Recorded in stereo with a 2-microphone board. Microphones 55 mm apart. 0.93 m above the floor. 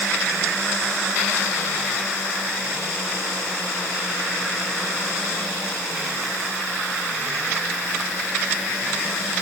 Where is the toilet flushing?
I don't hear a toilet flushing.